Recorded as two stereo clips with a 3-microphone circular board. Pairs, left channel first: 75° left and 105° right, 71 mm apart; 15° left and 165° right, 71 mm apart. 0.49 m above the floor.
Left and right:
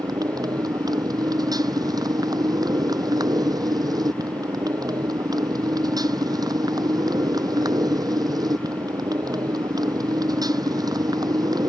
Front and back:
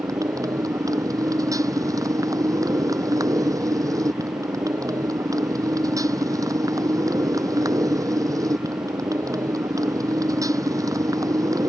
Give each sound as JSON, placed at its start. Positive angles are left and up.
{"t": 0.0, "sound": "a motorcycle", "azimuth_deg": -130}